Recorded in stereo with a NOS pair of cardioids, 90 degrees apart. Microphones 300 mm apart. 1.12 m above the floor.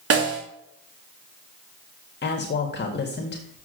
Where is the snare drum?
50° right, 3 m.